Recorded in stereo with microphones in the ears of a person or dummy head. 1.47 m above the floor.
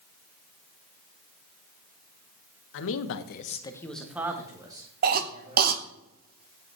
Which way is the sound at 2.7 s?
70° left (ahead or behind).